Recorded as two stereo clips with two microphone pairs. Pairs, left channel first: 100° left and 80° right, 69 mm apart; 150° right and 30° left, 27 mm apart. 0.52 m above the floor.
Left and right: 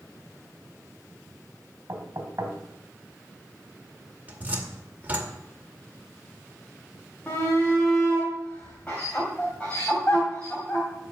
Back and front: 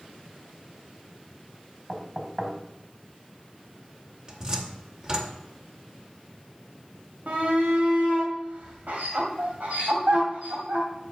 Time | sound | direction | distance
1.9 | knocking | 35° right | 3 m
4.3 | a cupboard door | 20° right | 1.9 m
7.3 | a shout | 30° left | 2.5 m